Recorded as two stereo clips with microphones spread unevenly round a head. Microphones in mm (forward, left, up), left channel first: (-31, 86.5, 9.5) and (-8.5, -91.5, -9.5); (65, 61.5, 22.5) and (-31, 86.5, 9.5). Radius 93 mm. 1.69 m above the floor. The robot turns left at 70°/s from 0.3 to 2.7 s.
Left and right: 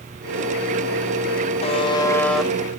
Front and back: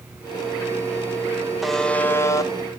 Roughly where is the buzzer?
Left.